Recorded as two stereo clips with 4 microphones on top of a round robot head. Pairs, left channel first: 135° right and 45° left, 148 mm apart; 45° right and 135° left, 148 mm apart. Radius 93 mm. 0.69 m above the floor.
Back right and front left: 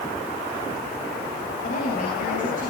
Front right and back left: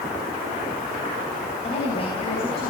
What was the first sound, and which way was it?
A woman speaking, 95° right.